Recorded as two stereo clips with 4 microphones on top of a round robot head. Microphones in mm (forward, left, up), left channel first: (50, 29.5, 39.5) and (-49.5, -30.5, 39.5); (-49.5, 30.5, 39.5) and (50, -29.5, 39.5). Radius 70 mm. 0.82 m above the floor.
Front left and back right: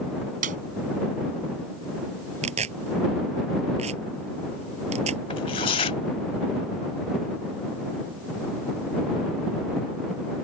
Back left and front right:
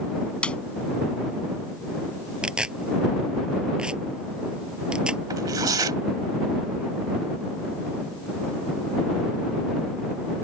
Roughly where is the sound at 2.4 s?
Behind right.